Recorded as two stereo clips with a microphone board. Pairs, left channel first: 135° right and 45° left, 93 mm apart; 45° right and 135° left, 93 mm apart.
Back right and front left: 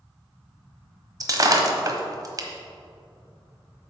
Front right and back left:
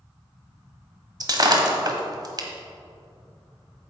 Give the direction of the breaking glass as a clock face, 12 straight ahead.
9 o'clock.